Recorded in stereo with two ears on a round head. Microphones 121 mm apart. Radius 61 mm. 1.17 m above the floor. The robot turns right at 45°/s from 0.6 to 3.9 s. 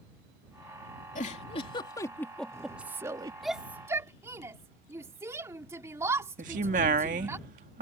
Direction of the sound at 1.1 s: 115° left.